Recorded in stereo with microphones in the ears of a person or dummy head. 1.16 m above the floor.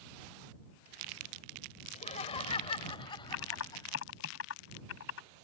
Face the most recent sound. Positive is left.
turn(degrees=80)